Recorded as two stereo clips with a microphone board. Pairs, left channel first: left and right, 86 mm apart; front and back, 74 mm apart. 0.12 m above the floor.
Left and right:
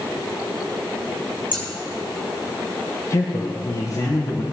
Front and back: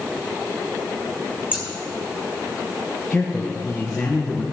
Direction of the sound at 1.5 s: 110° right.